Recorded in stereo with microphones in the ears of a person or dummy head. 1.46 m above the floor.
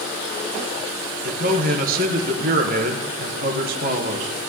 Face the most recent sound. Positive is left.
turn(degrees=-45)  # may be behind; listen again after turning